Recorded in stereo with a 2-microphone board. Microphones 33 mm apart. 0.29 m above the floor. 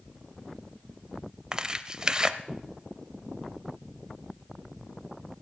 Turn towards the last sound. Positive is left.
turn(degrees=-25)  # may be behind; listen again after turning